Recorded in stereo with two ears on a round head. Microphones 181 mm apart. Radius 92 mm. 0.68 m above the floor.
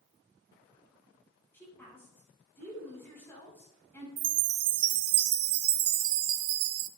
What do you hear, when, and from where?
1.5 s a woman speaking: 10° left (ahead or behind), 6 m
4.2 s a chime: 85° right, 0.7 m